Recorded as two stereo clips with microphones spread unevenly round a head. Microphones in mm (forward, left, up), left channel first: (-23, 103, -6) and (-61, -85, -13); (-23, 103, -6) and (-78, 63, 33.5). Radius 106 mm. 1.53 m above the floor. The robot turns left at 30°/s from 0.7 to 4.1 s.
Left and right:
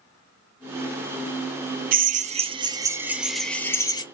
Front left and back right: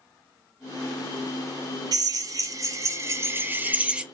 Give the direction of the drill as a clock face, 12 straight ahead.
5 o'clock.